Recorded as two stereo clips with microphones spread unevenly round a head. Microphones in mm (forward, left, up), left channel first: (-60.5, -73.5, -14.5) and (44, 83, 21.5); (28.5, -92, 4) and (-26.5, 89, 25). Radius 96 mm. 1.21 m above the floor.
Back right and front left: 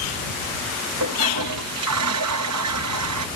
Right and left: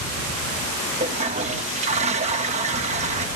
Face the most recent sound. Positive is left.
turn(degrees=50)